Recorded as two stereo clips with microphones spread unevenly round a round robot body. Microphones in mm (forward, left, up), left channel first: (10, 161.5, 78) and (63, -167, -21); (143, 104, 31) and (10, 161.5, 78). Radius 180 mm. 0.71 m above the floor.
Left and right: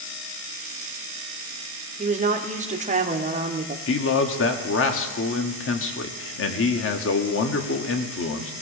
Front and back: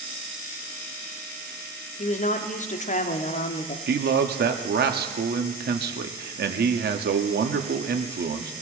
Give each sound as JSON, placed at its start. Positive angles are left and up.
{"t": 2.0, "sound": "a woman speaking", "azimuth_deg": -20, "distance_m": 1.5}
{"t": 3.9, "sound": "a man speaking", "azimuth_deg": 160, "distance_m": 1.4}